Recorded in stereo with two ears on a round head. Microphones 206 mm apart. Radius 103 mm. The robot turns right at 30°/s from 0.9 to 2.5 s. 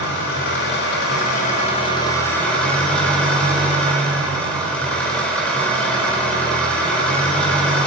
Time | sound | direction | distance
0.0 | an engine running | 125° left | 4.5 m